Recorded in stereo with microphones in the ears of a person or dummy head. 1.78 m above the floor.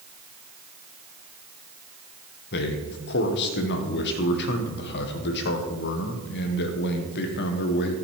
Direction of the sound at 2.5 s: 55° left (ahead or behind).